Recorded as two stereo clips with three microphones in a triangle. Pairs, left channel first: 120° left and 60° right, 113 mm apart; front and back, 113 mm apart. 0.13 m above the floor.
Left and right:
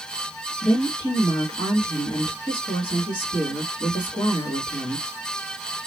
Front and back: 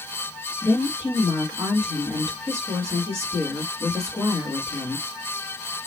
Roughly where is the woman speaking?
Behind left.